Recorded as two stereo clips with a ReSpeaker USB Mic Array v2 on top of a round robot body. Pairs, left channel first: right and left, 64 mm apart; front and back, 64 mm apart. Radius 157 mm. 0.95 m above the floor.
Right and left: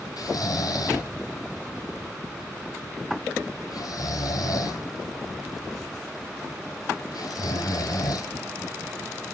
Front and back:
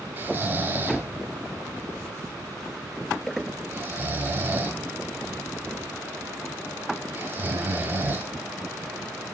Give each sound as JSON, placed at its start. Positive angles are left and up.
{"t": 0.2, "sound": "snoring", "azimuth_deg": -120, "distance_m": 2.5}